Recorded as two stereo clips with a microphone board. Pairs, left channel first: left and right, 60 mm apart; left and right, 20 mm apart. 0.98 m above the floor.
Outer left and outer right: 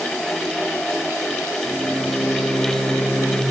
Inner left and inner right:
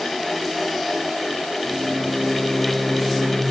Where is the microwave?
70° left (ahead or behind), 4.5 m.